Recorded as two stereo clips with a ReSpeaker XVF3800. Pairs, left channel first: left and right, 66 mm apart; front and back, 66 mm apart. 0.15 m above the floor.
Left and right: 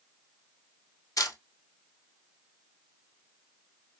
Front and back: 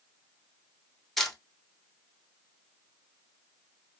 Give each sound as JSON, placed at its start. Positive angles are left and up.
{"t": 1.2, "sound": "a camera shutter", "azimuth_deg": 90, "distance_m": 0.7}